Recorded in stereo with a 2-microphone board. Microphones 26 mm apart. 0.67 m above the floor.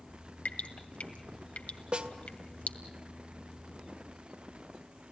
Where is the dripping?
70° left (ahead or behind), 1.9 m.